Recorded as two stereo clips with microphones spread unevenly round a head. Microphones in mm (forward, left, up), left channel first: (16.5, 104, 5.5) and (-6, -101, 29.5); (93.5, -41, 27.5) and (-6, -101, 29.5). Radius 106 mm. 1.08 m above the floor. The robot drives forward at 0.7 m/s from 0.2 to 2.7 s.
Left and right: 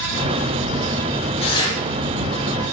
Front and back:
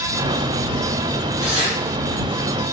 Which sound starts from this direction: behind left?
Tearing paper, at 1.4 s.